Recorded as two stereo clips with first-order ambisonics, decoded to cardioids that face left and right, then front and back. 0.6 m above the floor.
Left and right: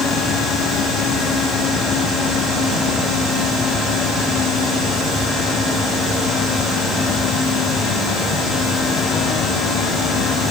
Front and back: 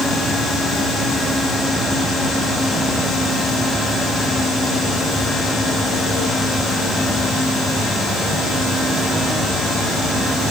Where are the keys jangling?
I don't hear keys jangling.